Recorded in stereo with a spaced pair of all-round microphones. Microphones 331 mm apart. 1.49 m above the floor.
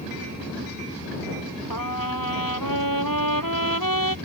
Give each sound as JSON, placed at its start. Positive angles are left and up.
{"t": 1.7, "sound": "a trumpet", "side_deg": 80}